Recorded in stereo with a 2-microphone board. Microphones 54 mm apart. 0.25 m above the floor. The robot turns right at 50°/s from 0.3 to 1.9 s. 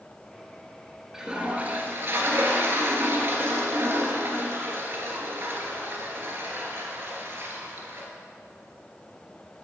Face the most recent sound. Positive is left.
turn(degrees=-130)